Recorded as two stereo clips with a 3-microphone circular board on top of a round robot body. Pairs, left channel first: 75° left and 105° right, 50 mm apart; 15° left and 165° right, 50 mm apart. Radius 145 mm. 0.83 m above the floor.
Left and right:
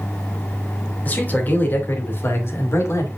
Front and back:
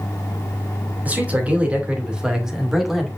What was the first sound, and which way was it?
A man speaking, 135° left.